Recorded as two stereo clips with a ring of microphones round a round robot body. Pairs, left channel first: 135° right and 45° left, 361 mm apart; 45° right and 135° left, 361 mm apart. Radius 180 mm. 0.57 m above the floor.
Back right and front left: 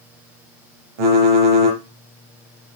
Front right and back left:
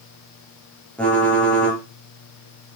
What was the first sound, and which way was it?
Typing on a keyboard, 40° left.